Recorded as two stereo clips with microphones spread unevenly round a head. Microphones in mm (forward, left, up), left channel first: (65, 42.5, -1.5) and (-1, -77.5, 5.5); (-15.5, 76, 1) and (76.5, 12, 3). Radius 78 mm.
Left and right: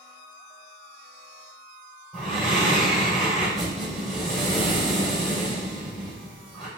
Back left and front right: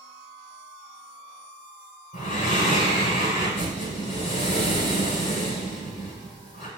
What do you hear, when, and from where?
2.1 s breathing: 145° left, 3.5 m